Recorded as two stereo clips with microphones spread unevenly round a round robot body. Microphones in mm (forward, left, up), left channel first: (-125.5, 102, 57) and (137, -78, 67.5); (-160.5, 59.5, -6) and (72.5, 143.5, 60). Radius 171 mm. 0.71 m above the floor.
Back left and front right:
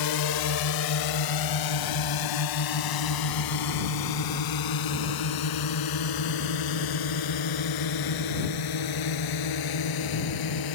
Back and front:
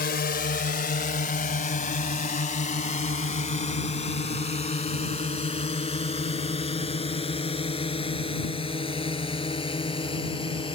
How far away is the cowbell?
I don't hear a cowbell.